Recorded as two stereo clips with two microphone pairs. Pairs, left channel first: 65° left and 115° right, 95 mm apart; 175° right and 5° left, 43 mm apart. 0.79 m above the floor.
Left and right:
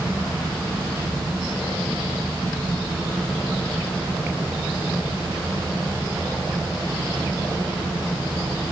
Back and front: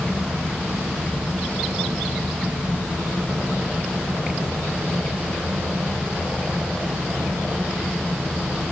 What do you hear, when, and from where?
Only background noise.